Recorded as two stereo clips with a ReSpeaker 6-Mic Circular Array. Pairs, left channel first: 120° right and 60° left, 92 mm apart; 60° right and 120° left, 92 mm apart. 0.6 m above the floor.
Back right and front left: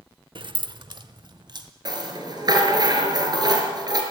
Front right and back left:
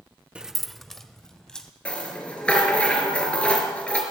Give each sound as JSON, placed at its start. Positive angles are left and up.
{"t": 0.3, "sound": "keys jangling", "azimuth_deg": 45, "distance_m": 0.5}
{"t": 1.9, "sound": "a rattle", "azimuth_deg": 20, "distance_m": 5.0}